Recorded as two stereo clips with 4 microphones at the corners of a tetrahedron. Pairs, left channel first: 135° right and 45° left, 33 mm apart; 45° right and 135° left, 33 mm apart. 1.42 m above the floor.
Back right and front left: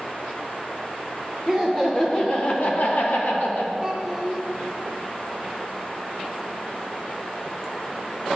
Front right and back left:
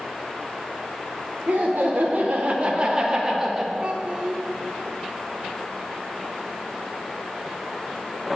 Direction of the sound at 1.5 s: 140° left.